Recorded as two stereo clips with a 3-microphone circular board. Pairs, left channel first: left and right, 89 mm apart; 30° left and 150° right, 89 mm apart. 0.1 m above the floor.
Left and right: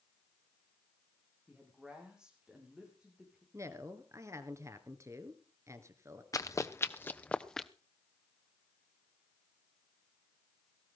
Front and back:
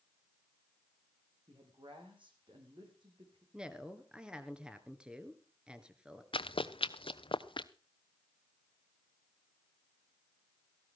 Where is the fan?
No fan in this recording.